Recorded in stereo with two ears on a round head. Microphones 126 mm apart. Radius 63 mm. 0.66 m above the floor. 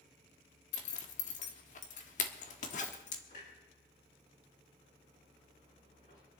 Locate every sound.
0.7 s a zipper: 55° left (ahead or behind), 1.4 m
3.3 s a clunk: 55° left (ahead or behind), 7 m